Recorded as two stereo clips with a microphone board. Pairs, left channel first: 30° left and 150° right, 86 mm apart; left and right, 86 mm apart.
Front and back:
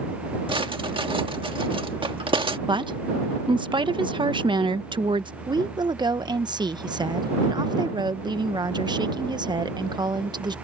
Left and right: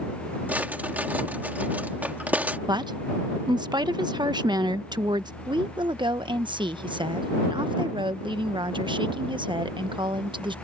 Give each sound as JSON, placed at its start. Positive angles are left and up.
{"t": 0.5, "sound": "a drawer", "azimuth_deg": -160}
{"t": 2.7, "sound": "a woman speaking", "azimuth_deg": -125}
{"t": 5.5, "sound": "a woman speaking", "azimuth_deg": -115}